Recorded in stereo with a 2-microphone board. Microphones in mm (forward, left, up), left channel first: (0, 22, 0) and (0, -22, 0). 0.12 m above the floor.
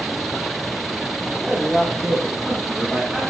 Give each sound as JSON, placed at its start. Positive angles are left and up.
{"t": 1.5, "sound": "a man speaking", "side_deg": -10, "distance_m": 8.0}